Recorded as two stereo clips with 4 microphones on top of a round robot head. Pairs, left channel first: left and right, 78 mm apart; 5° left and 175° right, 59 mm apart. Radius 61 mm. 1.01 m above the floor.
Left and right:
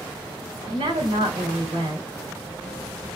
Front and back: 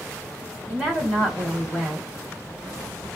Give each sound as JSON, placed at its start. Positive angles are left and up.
{"t": 0.7, "sound": "a woman speaking", "azimuth_deg": -110, "distance_m": 4.0}